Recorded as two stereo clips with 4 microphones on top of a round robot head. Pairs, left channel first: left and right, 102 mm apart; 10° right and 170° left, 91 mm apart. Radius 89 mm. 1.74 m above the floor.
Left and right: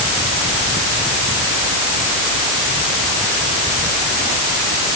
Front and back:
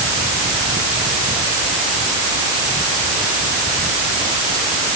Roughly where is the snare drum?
No snare drum in this recording.